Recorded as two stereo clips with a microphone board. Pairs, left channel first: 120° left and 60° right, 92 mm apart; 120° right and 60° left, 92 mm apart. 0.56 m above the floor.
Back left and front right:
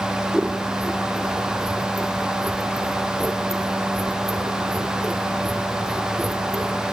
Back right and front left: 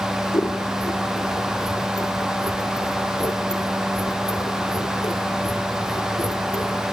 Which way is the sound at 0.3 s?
145° right.